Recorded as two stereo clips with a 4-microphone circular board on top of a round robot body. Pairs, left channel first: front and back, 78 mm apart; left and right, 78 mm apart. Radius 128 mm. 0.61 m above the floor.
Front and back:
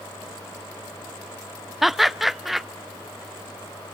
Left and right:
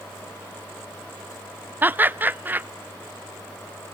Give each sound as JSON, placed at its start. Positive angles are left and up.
{"t": 1.8, "sound": "laughter", "azimuth_deg": -95, "distance_m": 0.5}